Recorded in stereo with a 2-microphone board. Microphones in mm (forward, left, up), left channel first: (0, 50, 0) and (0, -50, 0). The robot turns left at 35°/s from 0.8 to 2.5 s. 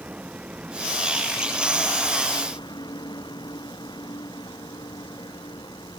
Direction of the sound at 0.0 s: 165° right.